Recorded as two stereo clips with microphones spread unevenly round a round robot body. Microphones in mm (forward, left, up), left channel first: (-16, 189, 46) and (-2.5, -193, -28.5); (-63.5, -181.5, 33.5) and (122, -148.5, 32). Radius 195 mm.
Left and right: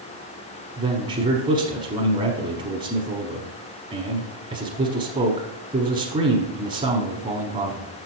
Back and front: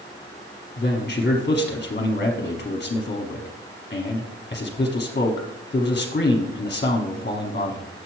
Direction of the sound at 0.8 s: 145° right.